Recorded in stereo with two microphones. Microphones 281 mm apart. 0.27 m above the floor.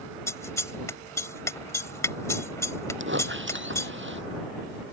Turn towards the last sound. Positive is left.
turn(degrees=-40)  # may be behind; listen again after turning